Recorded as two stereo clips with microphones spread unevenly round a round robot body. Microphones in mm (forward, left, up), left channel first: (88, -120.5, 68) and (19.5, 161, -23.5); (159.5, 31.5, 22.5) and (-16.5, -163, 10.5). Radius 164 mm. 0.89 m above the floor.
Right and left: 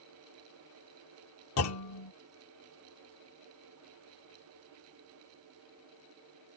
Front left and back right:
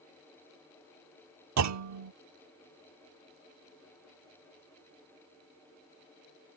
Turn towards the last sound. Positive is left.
turn(degrees=-115)